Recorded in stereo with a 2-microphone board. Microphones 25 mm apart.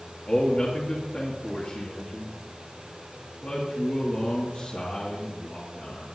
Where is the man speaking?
50° left (ahead or behind), 2.5 m.